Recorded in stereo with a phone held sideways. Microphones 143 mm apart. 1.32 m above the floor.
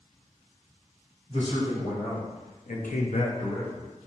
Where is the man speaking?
50° left (ahead or behind), 1.9 m; by 3.9 s 5° left (ahead or behind), 0.8 m.